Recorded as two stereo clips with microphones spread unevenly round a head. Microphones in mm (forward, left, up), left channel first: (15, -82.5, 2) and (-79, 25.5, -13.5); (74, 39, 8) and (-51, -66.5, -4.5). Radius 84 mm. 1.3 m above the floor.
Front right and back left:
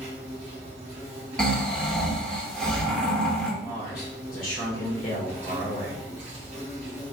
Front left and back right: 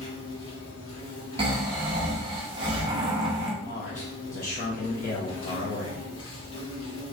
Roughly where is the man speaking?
Ahead.